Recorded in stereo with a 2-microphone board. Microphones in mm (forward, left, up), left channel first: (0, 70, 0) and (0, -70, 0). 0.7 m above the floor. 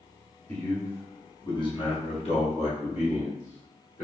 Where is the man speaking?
10° left (ahead or behind), 1.3 m; by 4.0 s 60° left (ahead or behind), 1.6 m.